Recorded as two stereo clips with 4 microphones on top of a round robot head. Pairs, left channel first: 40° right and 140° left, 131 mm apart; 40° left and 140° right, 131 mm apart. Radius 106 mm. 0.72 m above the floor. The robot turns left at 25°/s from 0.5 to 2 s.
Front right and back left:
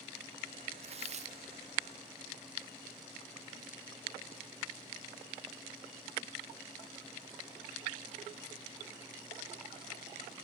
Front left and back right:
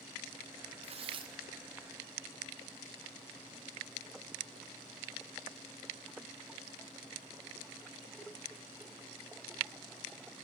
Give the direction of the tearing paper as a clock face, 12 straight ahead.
6 o'clock.